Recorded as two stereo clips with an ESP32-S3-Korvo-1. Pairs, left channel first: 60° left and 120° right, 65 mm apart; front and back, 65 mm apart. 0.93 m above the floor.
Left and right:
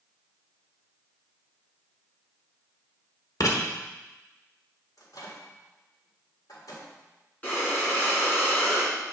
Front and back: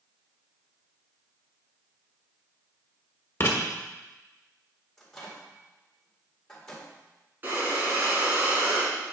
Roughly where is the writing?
Ahead left.